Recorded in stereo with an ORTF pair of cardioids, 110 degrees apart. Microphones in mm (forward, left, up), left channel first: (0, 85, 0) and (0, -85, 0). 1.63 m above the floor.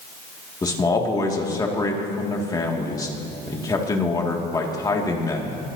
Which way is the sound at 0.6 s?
20° left.